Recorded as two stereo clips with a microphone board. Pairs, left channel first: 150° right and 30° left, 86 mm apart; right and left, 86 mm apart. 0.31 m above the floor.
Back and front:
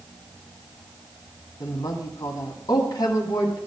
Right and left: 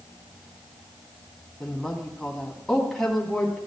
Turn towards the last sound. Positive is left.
turn(degrees=-175)